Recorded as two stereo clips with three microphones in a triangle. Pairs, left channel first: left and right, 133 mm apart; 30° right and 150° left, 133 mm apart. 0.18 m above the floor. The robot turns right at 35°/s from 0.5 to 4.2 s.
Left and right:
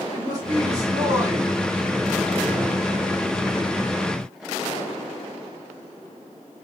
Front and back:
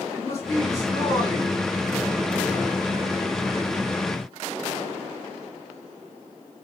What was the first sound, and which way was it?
A man speaking, 70° right.